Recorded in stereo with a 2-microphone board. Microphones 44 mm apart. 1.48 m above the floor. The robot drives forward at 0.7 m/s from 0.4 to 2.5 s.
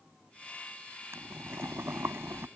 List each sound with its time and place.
1.1 s boiling: 80° right